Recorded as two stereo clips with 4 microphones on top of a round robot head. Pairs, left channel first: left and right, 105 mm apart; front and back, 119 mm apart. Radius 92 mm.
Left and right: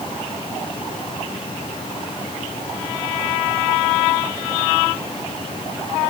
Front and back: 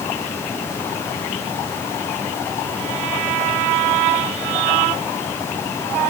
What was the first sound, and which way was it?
Only background noise.